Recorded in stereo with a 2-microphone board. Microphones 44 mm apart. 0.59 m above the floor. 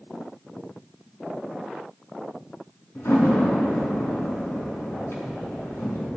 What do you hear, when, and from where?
3.0 s a door slam: 80° left, 4 m